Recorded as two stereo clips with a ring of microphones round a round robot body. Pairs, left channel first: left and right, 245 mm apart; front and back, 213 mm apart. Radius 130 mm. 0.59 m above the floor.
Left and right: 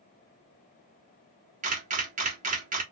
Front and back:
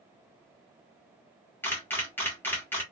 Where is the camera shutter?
70° right, 1.1 m.